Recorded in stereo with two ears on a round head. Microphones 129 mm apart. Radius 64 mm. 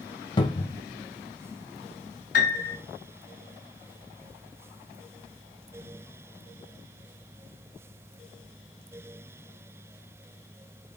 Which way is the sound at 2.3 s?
60° left (ahead or behind).